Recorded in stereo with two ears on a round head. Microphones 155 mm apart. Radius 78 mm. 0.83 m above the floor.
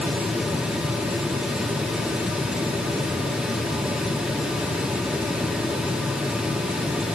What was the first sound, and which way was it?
Only background noise.